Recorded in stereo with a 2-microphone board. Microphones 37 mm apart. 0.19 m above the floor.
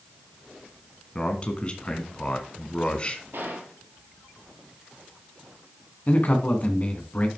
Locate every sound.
1.1 s a man speaking: 30° left (ahead or behind), 1.7 m
3.3 s a gunshot: 70° right (ahead or behind), 3 m
6.1 s a man speaking: 40° left (ahead or behind), 1.9 m